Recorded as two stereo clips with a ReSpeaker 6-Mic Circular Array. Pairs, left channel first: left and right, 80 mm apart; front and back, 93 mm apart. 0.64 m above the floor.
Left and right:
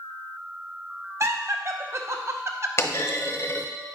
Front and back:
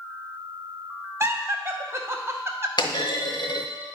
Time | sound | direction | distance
1.2 | laughter | 130° right | 0.8 m
2.8 | a clunk | 35° left | 0.7 m